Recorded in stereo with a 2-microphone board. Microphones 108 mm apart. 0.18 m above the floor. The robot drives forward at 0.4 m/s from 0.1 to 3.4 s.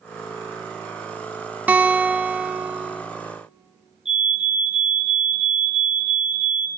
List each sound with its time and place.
1.7 s a guitar: 15° right (ahead or behind), 0.6 m; by 3.0 s 10° right (ahead or behind), 0.9 m
4.0 s a fire alarm: 55° left (ahead or behind), 4.5 m